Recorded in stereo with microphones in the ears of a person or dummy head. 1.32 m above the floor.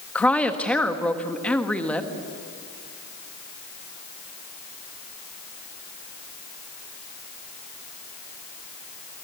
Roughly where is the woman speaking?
Centre.